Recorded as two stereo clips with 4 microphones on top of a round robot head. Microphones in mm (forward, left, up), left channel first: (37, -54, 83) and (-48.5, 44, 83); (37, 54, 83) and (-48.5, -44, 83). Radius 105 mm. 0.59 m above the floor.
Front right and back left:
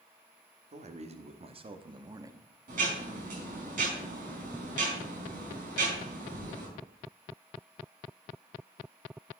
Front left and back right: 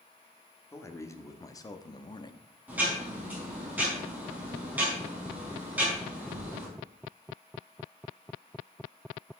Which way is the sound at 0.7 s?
115° left.